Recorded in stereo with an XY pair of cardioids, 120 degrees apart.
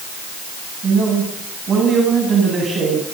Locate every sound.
0.8 s a man speaking: 35° right, 8 m